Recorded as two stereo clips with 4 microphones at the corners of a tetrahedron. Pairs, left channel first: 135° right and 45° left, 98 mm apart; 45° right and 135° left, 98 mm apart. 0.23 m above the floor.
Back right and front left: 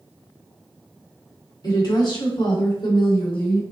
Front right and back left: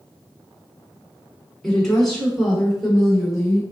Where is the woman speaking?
130° right, 1.5 m; by 3.6 s 140° right, 2.5 m.